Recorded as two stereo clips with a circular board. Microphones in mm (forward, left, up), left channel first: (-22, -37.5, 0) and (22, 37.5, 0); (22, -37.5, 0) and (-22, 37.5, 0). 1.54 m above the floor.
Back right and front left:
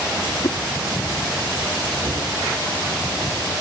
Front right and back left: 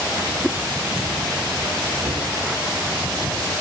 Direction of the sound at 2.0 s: 85° left.